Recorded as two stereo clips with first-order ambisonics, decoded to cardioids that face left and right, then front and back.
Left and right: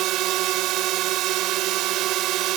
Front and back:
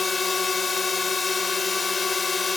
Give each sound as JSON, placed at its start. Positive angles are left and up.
{"t": 0.0, "sound": "a drone", "azimuth_deg": -75}